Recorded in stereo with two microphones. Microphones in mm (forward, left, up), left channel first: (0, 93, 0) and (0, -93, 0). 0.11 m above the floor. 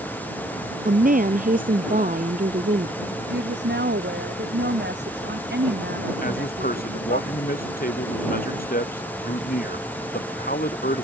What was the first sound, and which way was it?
A woman speaking, 50° right (ahead or behind).